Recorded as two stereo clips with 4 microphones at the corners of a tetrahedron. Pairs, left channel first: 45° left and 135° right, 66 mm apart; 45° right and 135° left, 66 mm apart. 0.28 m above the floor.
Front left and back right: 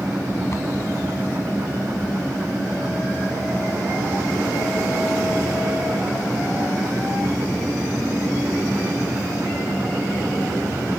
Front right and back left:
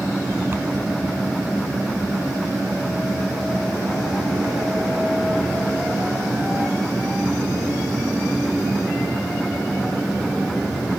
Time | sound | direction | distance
0.5 | a cupboard door | 85° left | ?